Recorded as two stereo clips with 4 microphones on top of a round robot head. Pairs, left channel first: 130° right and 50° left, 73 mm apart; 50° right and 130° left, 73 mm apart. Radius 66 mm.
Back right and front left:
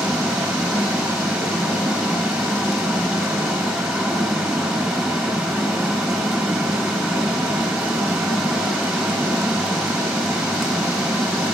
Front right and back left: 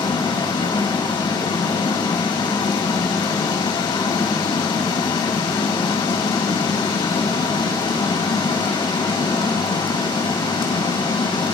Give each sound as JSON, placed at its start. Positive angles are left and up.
{"t": 0.0, "sound": "running water", "azimuth_deg": -40, "distance_m": 5.0}